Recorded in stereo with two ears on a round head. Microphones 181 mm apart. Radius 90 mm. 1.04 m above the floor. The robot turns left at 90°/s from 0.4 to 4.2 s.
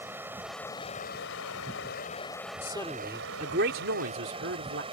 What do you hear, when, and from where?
0.0 s running water: 170° right; by 4.9 s 150° right
2.6 s a man speaking: 30° left; by 4.8 s 110° right